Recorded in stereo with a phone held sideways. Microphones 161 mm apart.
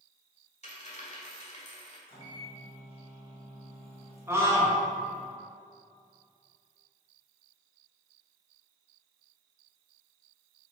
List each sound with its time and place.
0.6 s a dropped coin: 45° left (ahead or behind), 1.8 m
2.1 s a microwave: 35° left (ahead or behind), 1.8 m
4.3 s a scream: 20° right (ahead or behind), 1.9 m